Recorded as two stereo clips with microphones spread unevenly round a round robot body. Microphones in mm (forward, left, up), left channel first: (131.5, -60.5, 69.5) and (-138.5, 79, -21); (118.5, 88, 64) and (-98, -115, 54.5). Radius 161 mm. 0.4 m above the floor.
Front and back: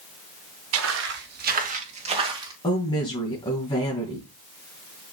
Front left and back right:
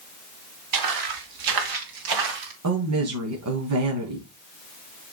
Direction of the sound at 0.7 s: 160° right.